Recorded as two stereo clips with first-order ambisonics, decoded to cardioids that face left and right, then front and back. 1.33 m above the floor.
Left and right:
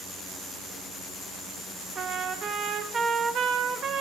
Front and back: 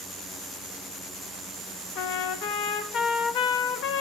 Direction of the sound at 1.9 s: 35° right.